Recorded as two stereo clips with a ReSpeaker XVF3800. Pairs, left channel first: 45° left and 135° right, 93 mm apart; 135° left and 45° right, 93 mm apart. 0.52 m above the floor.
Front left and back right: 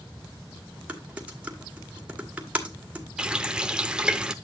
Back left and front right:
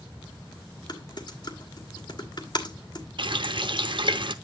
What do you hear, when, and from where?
0.9 s typing on a keyboard: 150° left, 1.7 m
3.2 s a running tap: 55° right, 0.7 m